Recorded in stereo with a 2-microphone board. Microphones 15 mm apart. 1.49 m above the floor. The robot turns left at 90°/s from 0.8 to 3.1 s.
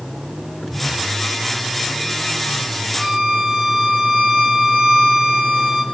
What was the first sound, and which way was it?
A violin, 65° right (ahead or behind).